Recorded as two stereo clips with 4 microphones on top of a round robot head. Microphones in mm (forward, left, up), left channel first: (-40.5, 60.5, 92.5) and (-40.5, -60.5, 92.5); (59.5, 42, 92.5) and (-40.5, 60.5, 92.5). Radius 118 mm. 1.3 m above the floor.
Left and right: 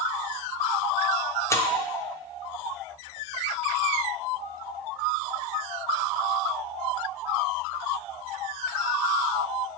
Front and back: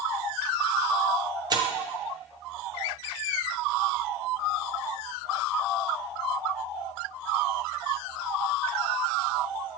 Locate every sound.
1.5 s tearing paper: 150° left, 0.6 m